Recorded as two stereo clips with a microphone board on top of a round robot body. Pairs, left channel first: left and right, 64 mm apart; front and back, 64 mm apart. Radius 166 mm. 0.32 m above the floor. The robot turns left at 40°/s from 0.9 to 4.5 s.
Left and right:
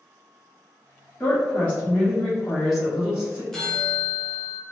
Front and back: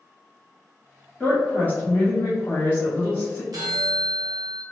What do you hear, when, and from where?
1.2 s a woman speaking: 55° left, 1.3 m; by 3.4 s 35° right, 1.3 m
3.5 s a bell: 175° left, 0.8 m; by 4.6 s 135° left, 0.8 m